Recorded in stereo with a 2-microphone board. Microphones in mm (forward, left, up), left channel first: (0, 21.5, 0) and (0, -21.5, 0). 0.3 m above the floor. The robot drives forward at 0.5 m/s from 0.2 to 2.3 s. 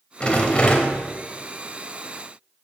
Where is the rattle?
25° left (ahead or behind), 0.9 m; by 1.0 s 30° left (ahead or behind), 0.8 m.